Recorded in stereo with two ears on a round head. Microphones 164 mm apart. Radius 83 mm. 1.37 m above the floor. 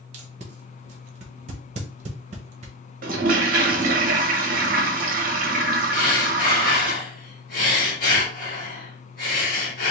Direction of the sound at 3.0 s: 45° right (ahead or behind).